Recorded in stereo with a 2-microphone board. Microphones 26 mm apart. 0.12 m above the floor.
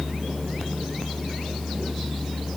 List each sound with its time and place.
Only background noise.